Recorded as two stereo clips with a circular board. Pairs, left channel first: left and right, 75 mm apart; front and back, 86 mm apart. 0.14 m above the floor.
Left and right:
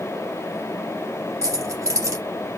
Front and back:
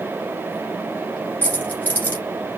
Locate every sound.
1.4 s keys jangling: 65° right, 1.6 m